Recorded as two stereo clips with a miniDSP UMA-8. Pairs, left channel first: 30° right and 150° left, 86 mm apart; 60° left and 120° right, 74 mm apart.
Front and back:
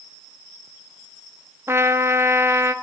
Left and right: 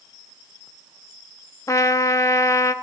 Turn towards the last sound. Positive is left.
turn(degrees=95)